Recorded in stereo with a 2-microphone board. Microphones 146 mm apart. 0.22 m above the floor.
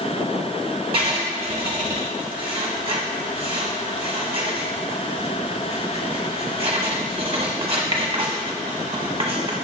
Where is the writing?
40° right (ahead or behind), 0.8 m.